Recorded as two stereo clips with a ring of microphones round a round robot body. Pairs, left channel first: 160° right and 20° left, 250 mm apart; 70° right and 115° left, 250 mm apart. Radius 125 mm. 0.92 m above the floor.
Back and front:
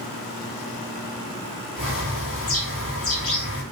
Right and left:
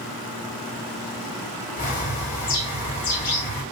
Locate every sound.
1.8 s a bird: 125° right, 1.8 m